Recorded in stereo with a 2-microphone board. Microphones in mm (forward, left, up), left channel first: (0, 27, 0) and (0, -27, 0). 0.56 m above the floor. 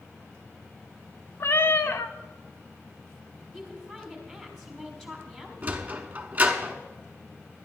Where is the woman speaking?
5° left (ahead or behind), 3.5 m.